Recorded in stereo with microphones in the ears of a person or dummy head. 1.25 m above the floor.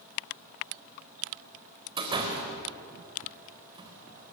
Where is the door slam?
30° right (ahead or behind), 4 m.